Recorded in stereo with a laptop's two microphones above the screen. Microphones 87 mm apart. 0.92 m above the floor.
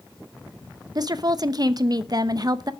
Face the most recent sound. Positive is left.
turn(degrees=-50)  # may be behind; listen again after turning